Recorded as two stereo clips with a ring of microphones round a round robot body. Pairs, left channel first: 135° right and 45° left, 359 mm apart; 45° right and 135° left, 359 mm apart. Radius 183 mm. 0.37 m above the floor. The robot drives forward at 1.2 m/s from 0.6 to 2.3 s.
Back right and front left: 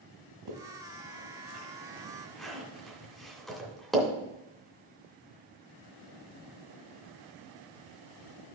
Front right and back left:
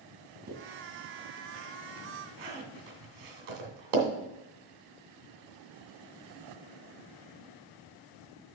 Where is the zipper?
70° left, 1.6 m; by 4.1 s 135° left, 2 m.